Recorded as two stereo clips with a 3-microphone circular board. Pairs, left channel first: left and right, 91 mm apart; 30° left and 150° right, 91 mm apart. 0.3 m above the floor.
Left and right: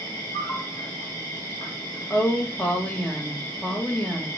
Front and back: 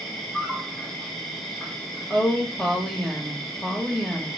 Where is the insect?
115° left, 2.0 m.